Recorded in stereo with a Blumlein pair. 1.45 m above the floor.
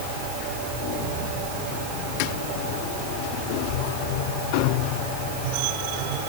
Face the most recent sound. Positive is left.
No sound to turn to.